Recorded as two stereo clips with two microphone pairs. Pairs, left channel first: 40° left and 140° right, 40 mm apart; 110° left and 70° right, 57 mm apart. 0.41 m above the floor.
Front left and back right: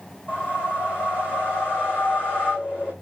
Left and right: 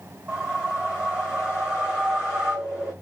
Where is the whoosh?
Straight ahead, 4 m.